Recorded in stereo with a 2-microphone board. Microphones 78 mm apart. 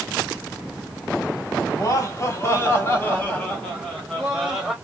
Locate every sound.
1.7 s laughter: 45° left (ahead or behind), 1.5 m; by 4.7 s centre (ahead or behind), 2 m